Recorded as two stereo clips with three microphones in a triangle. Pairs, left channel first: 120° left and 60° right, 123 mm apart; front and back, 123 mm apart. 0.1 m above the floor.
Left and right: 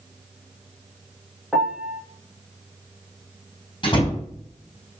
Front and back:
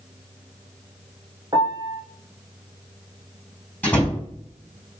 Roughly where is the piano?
Behind right.